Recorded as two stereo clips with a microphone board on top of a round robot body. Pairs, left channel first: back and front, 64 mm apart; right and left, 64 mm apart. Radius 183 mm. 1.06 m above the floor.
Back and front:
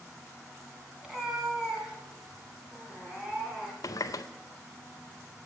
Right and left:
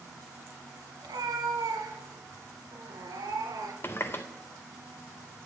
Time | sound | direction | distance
1.0 | a cat meowing | 85° left | 2.5 m
3.8 | a running tap | 150° right | 0.5 m